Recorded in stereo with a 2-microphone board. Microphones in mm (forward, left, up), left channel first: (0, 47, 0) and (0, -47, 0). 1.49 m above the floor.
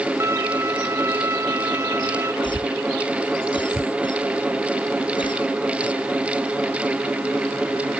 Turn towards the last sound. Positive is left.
turn(degrees=60)  # may be behind; listen again after turning